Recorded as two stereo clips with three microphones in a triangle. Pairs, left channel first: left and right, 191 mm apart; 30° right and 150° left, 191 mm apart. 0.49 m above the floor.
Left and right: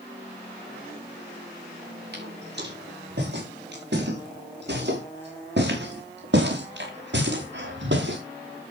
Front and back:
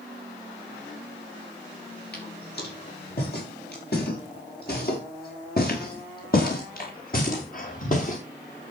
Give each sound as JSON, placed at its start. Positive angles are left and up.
{"t": 2.1, "sound": "footsteps", "azimuth_deg": -60, "distance_m": 8.5}